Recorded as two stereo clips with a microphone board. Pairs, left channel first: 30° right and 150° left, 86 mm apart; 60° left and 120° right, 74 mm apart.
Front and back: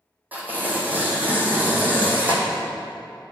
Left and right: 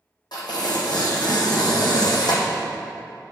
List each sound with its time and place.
0.3 s tearing paper: 80° left, 1.7 m